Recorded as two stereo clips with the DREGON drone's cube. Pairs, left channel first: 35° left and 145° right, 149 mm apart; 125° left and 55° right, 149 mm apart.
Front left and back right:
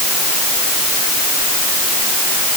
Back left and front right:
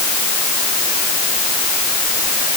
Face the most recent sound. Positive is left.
No sound to turn to.